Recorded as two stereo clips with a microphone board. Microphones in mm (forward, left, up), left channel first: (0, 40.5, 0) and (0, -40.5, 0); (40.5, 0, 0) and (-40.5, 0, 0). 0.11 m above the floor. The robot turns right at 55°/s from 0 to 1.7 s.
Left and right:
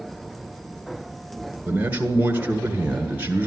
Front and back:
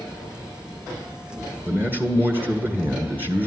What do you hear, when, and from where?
1.6 s a man speaking: 145° right, 1.7 m; by 3.5 s 140° right, 1.7 m